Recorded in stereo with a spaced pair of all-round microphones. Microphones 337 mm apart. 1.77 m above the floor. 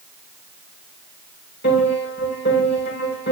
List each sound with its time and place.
1.6 s a piano: 35° left (ahead or behind), 6 m